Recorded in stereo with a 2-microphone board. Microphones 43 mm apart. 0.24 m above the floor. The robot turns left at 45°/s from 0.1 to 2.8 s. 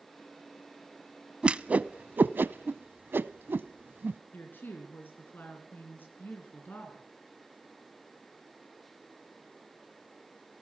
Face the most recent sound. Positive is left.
turn(degrees=50)  # may be behind; listen again after turning